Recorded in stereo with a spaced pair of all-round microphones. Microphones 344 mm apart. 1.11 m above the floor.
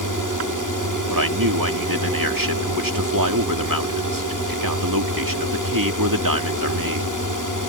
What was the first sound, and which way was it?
A drone, 65° right (ahead or behind).